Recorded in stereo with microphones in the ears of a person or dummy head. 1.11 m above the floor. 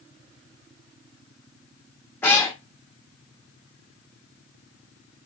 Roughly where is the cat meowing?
Centre.